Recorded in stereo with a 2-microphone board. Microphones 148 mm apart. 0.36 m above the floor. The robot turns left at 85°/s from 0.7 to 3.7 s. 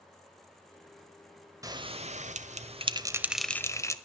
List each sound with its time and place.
1.6 s a bell: 25° right (ahead or behind), 1.0 m; by 4.0 s 20° left (ahead or behind), 1.0 m